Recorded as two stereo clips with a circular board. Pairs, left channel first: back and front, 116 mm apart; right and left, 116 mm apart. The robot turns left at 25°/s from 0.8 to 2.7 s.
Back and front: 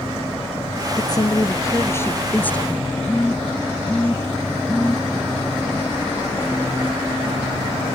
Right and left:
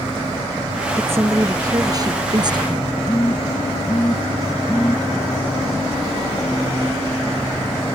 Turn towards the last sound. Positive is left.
turn(degrees=-120)